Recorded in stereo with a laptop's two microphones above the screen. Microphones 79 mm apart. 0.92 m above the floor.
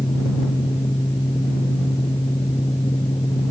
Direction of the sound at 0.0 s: 80° left.